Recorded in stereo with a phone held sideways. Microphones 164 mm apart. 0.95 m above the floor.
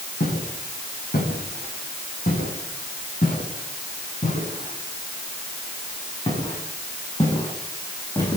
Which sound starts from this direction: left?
Footsteps, at 0.2 s.